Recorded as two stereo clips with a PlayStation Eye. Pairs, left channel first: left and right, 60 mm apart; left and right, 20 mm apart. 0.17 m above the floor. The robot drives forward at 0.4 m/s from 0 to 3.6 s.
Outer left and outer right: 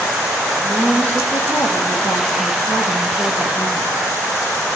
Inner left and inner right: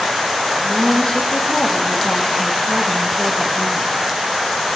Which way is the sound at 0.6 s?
30° left (ahead or behind).